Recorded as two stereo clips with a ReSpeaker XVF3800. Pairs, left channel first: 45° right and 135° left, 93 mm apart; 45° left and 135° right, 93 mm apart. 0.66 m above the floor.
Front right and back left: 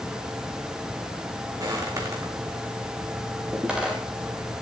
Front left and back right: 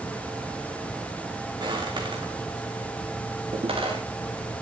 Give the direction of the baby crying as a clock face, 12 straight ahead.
I don't hear a baby crying.